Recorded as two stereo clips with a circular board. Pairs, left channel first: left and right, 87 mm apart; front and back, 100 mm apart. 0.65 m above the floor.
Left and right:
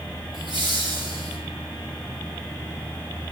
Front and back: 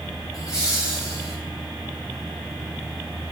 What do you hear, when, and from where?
0.3 s laughter: 55° right, 7.5 m